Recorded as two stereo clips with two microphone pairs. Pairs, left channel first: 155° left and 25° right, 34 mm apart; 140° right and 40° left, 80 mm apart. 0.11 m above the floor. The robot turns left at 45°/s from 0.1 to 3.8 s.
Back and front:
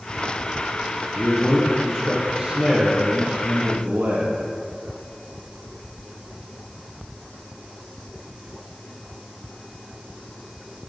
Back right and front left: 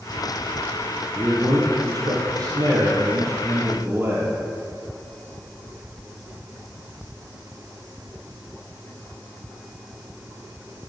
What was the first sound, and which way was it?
A man speaking, 100° left.